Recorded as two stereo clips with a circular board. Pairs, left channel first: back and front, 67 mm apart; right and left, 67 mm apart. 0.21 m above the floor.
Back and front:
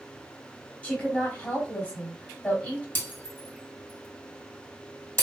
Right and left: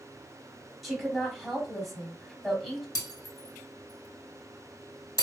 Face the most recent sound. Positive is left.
turn(degrees=-120)